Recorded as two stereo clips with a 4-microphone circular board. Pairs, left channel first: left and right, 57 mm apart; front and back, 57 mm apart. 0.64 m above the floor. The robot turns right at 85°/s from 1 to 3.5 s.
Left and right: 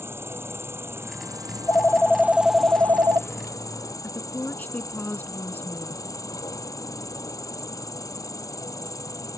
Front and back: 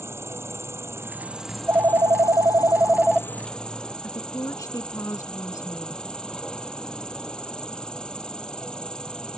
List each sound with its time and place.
0.0 s an insect: 135° right; by 9.4 s 75° left
1.5 s a phone ringing: 115° left; by 3.9 s 75° right
4.0 s a woman speaking: 30° left